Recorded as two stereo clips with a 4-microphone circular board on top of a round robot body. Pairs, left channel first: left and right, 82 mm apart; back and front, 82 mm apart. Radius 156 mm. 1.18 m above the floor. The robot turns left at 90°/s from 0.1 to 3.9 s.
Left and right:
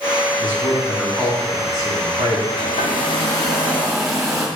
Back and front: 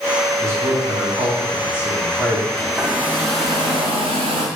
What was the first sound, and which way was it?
A man speaking, 60° left.